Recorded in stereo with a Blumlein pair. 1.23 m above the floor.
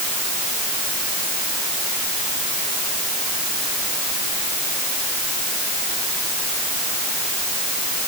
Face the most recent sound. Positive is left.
No sound to turn to.